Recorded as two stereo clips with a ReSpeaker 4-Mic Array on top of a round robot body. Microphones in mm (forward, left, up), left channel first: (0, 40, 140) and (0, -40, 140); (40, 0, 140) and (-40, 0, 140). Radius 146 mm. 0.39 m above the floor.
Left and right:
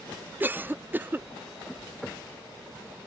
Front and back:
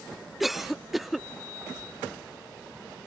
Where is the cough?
95° right.